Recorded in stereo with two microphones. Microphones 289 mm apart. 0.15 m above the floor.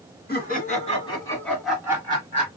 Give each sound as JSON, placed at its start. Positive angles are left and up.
{"t": 0.3, "sound": "laughter", "side_deg": 35, "distance_m": 2.0}